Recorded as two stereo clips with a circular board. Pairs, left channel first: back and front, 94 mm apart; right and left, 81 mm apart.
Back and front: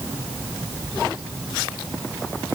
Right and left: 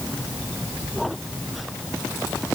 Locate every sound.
Only background noise.